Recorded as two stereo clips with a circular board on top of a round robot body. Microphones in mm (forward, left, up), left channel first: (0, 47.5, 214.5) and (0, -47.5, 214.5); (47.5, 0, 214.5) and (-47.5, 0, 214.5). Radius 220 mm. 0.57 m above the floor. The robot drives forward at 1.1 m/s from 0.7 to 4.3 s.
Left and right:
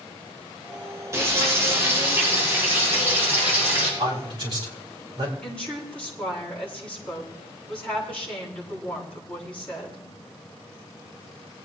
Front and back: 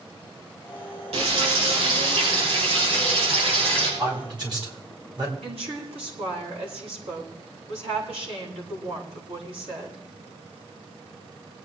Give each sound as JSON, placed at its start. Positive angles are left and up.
{"t": 1.1, "sound": "frying", "azimuth_deg": -155, "distance_m": 6.5}
{"t": 4.0, "sound": "a man speaking", "azimuth_deg": -135, "distance_m": 5.5}
{"t": 5.4, "sound": "a woman speaking", "azimuth_deg": 165, "distance_m": 9.0}